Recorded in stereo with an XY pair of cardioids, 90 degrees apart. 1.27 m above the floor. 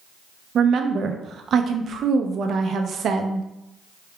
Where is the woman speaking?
65° right, 0.6 m.